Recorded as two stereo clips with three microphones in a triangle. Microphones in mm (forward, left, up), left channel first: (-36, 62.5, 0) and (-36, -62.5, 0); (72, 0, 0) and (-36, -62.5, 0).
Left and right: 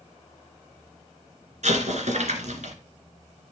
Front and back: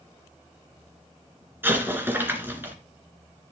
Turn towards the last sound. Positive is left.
turn(degrees=-75)